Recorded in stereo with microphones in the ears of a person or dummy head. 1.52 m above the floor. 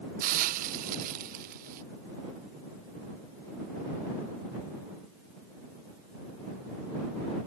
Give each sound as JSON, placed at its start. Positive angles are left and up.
{"t": 0.2, "sound": "a hiss", "side_deg": -40}